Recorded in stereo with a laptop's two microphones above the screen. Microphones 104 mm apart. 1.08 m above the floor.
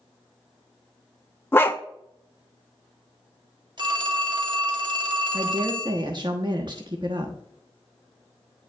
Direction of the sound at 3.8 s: 45° right (ahead or behind).